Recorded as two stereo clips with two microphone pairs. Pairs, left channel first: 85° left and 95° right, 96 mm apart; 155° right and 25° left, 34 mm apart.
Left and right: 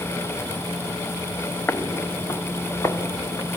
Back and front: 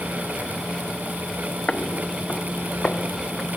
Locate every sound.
1.7 s footsteps: 150° left, 1.0 m; by 3.6 s 145° left, 3 m